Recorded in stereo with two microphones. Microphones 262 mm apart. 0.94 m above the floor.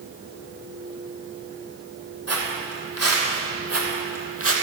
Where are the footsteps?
70° right (ahead or behind), 2.5 m; by 4.5 s 55° right (ahead or behind), 2 m.